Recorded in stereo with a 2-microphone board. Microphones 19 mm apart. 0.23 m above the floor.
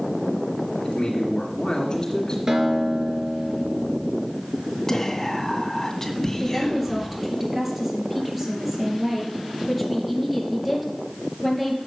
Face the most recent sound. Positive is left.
turn(degrees=-10)  # may be behind; listen again after turning